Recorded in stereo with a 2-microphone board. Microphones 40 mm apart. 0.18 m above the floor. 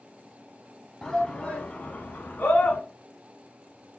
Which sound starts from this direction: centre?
A shout, at 1.0 s.